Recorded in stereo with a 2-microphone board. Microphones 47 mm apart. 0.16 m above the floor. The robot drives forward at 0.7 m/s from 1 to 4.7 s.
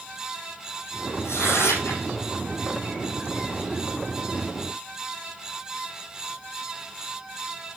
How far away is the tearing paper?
About 3.5 m.